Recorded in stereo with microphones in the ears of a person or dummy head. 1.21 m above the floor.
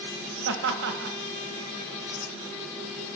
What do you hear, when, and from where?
0.5 s laughter: 60° right (ahead or behind), 1.6 m